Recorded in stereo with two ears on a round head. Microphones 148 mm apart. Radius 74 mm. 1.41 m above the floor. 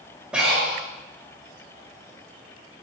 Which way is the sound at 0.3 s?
5° right (ahead or behind).